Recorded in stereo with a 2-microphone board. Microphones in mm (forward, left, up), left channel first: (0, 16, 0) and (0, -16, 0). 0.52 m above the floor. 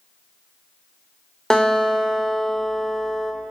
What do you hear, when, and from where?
1.5 s a guitar: 25° left (ahead or behind), 1.9 m